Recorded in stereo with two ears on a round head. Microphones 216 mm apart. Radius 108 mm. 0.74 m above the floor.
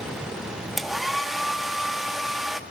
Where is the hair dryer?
Centre (ahead or behind), 1.2 m.